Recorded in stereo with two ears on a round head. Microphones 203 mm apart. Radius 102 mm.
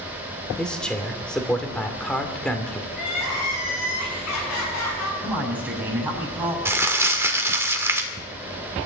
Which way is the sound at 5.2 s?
5° right (ahead or behind).